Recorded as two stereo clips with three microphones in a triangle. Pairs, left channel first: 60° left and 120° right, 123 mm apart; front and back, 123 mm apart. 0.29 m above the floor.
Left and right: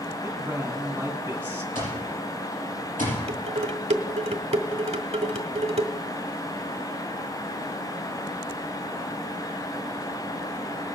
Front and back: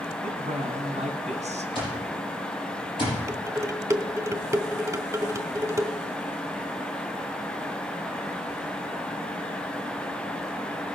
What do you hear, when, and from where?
0.2 s a man speaking: 165° left, 2.5 m
1.8 s an alarm clock: 50° left, 6 m
3.3 s dishes clattering: 120° right, 1.0 m